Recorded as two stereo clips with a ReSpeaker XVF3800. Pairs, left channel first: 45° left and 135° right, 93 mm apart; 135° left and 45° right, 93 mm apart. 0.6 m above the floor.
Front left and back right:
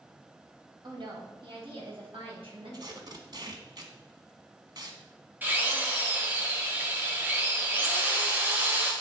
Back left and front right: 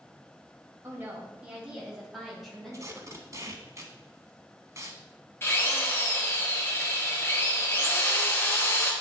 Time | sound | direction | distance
0.8 | a woman speaking | 105° right | 2 m
2.7 | tape being pulled | 100° right | 1.0 m
5.4 | a drill | 175° left | 1.4 m